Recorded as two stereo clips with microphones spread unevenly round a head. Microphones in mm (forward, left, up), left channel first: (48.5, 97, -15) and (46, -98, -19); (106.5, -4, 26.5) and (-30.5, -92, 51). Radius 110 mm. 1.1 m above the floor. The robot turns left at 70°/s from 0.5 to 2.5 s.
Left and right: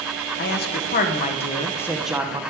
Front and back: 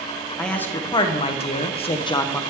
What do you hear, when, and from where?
0.4 s a man speaking: 105° left, 0.6 m; by 2.4 s 25° right, 0.6 m